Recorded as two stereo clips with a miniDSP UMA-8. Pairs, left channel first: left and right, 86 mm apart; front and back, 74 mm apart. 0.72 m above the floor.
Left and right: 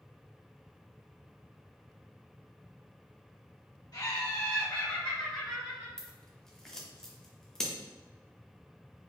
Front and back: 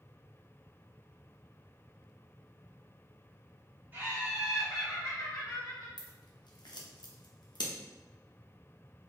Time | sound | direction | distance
3.9 | laughter | 125° left | 1.8 m
6.0 | scissors | 10° left | 0.7 m